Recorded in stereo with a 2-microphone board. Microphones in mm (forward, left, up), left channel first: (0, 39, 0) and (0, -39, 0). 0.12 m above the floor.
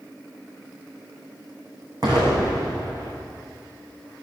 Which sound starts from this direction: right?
An explosion, at 2.0 s.